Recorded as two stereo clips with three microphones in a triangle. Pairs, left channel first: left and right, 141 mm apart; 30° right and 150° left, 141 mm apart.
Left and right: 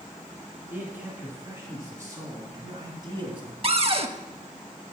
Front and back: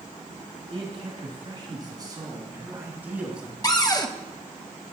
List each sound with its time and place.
0.7 s a man speaking: 165° right, 3 m; by 3.5 s 125° right, 1.9 m
3.6 s a cupboard door: 80° right, 0.5 m